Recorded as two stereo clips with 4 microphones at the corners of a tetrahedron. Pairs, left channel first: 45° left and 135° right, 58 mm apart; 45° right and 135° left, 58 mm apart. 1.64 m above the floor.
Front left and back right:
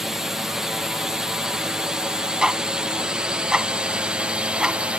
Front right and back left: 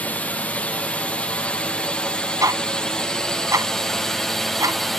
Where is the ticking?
150° left.